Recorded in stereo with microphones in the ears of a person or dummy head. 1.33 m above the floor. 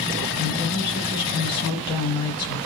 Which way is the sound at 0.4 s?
20° left (ahead or behind).